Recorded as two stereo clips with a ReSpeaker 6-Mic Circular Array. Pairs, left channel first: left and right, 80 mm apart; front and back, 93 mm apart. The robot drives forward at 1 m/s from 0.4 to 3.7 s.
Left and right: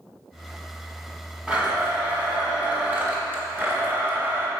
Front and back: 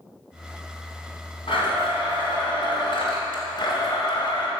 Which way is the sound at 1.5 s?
15° right.